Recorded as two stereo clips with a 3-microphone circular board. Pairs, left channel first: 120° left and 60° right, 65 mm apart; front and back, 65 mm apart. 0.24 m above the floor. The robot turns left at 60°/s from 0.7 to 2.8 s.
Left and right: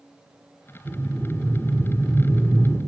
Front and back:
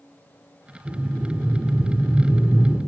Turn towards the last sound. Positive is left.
turn(degrees=100)